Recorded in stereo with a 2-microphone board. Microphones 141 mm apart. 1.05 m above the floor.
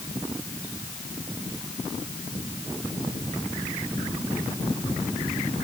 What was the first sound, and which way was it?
Only background noise.